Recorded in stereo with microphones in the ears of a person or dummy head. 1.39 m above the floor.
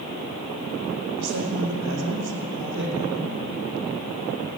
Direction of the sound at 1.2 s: 60° right (ahead or behind).